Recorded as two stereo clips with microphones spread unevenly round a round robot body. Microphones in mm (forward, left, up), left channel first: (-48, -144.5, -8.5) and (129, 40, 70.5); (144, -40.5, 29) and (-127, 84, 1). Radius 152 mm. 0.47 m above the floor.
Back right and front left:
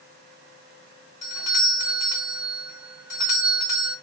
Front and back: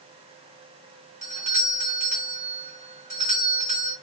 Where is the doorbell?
170° right, 1.9 m.